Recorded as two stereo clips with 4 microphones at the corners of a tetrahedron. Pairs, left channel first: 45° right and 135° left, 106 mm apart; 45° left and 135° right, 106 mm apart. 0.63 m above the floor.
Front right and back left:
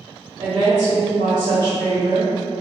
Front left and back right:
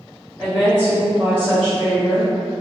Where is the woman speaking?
155° left, 0.9 m.